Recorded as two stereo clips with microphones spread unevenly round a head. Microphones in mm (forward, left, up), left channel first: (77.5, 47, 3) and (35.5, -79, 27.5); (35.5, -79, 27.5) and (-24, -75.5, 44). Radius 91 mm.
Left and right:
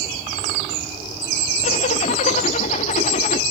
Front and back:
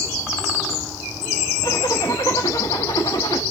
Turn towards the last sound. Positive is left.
turn(degrees=55)